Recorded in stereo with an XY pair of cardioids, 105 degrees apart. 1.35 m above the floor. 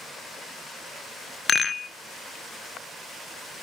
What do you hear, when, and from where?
1.5 s a rattle: 35° left, 1.0 m